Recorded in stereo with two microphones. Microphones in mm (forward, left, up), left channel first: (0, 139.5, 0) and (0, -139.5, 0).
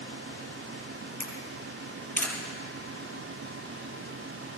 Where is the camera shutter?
10° left (ahead or behind), 3 m.